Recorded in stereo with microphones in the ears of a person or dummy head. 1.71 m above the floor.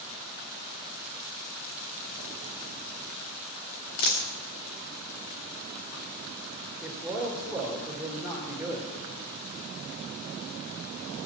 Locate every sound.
4.0 s a dropped coin: 45° left (ahead or behind), 1.7 m
6.8 s a man speaking: 5° right (ahead or behind), 2.5 m